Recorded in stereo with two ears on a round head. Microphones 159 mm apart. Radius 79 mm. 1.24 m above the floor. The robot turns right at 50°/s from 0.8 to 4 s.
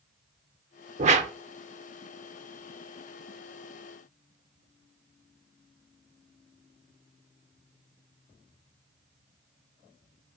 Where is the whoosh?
40° right (ahead or behind), 1.0 m; by 1.3 s 35° right (ahead or behind), 1.0 m.